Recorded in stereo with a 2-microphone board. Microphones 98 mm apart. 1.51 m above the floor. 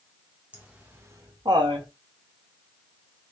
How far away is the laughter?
About 1.3 m.